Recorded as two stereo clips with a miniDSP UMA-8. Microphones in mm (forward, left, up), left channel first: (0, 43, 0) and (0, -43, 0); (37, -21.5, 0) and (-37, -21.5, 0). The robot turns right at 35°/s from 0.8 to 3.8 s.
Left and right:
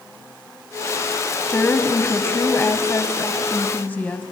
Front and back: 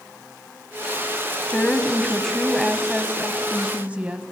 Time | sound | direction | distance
1.5 | a woman speaking | 50° left | 1.0 m